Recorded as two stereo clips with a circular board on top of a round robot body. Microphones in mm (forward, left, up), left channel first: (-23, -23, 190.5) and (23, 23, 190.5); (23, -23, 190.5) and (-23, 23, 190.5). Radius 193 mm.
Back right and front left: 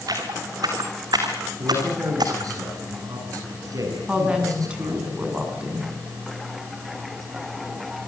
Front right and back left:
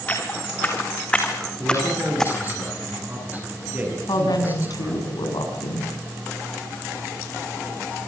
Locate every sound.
0.1 s footsteps: 20° left, 4.5 m; by 2.5 s 40° left, 3 m
1.6 s a man speaking: 75° left, 9.5 m
4.1 s a woman speaking: 30° right, 7.5 m